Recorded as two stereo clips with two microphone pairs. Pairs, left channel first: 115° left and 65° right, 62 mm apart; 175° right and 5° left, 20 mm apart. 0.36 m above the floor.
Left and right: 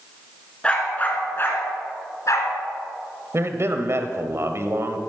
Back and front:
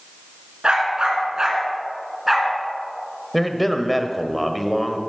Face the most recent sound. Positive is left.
turn(degrees=-80)